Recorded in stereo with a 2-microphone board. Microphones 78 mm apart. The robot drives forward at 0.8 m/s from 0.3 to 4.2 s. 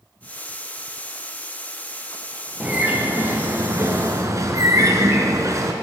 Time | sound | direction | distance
2.6 | a bird | 20° right (ahead or behind) | 1.8 m